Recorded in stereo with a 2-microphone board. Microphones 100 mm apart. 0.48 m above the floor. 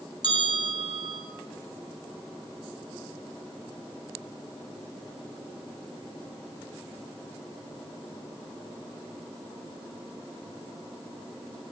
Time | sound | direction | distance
0.2 | a bell | 45° right (ahead or behind) | 4 m